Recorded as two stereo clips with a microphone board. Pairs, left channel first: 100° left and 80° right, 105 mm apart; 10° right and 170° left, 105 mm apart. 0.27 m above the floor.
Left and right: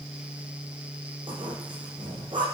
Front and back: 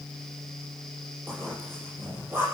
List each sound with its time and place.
1.3 s a zipper: 120° right, 9.5 m